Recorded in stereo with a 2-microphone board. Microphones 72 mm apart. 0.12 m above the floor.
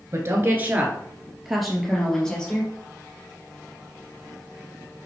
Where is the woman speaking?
40° right (ahead or behind), 2 m; by 2.7 s 15° left (ahead or behind), 4 m.